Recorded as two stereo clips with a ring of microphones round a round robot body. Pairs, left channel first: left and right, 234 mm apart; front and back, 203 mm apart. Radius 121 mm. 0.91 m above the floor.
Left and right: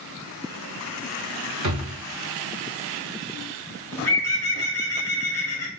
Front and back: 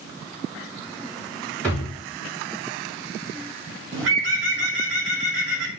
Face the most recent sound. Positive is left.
turn(degrees=170)